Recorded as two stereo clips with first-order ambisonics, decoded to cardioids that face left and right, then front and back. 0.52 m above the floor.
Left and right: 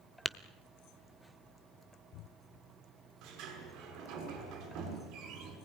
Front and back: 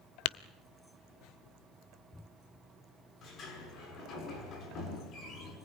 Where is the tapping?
5° left, 0.6 m.